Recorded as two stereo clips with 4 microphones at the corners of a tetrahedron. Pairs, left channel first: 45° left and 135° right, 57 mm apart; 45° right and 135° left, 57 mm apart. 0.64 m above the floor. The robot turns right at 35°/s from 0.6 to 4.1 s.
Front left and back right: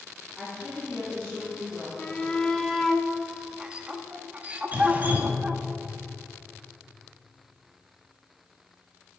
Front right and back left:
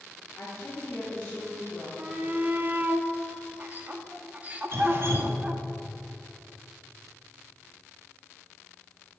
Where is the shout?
100° left, 0.7 m; by 5.6 s 175° left, 0.7 m.